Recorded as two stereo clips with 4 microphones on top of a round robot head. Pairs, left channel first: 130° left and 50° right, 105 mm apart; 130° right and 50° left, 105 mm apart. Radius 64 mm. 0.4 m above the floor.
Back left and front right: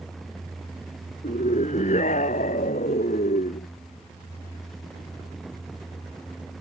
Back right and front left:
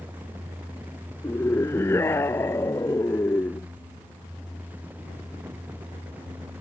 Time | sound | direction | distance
1.2 | a scream | 160° left | ?